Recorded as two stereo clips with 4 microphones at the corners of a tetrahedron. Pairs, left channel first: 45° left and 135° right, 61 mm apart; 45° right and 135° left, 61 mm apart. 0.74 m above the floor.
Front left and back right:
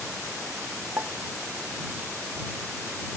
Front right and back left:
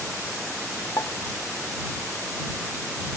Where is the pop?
90° right.